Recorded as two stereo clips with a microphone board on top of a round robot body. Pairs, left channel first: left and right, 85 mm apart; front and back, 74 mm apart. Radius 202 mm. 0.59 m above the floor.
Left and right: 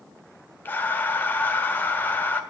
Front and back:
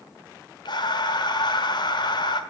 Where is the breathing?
20° left, 1.3 m.